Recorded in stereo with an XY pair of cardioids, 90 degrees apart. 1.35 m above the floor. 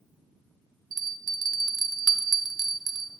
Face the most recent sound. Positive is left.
turn(degrees=-55)